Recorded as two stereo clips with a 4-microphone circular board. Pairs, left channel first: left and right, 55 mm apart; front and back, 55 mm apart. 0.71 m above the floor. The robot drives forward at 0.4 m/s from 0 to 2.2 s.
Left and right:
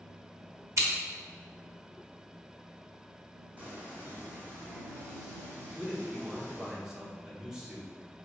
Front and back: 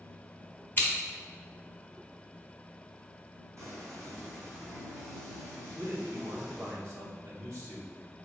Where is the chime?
I don't hear a chime.